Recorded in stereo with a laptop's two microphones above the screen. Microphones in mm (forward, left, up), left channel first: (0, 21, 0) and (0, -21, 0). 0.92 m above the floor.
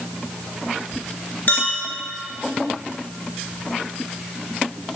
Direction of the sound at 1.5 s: 50° left (ahead or behind).